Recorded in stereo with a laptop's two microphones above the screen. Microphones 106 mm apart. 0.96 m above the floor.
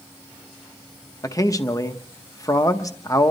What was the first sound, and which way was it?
A man speaking, 30° left (ahead or behind).